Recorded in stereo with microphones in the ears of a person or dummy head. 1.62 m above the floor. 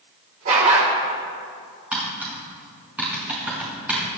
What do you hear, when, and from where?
0.5 s a dog barking: 35° right (ahead or behind), 2.5 m
1.9 s tapping: 5° right (ahead or behind), 5.5 m